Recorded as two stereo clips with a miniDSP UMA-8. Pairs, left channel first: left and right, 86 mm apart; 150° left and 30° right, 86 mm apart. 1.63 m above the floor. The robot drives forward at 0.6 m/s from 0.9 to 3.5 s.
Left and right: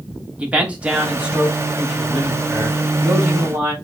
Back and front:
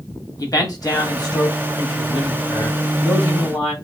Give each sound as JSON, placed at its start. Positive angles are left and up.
{"t": 0.4, "sound": "a man speaking", "azimuth_deg": -165, "distance_m": 0.9}